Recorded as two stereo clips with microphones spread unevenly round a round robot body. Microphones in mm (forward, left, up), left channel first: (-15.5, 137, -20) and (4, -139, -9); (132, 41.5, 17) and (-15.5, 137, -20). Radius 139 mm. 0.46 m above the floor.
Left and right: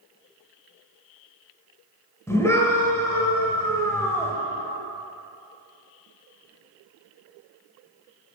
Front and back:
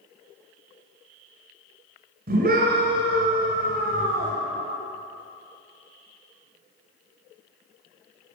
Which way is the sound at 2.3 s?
175° left.